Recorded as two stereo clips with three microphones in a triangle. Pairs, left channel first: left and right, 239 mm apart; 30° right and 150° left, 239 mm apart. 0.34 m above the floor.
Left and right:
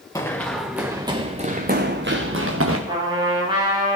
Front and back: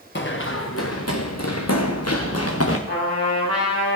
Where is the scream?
No scream in this recording.